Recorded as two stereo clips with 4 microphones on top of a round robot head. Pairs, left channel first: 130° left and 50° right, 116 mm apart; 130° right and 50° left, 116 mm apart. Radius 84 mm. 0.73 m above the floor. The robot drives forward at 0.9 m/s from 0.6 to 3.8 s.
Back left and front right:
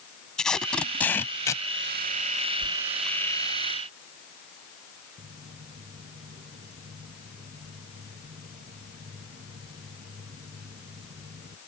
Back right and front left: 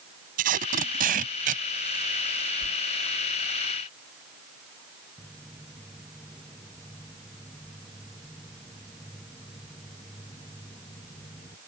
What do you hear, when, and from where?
0.4 s tape being pulled: 45° left; by 2.5 s 90° left
2.6 s a whoosh: 115° right
5.2 s footsteps: 40° right; by 11.6 s 70° right